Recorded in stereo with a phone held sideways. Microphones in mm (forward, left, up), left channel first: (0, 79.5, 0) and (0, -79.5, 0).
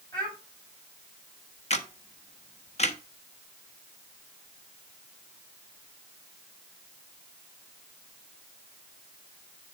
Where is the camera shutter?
45° left (ahead or behind), 1.1 m.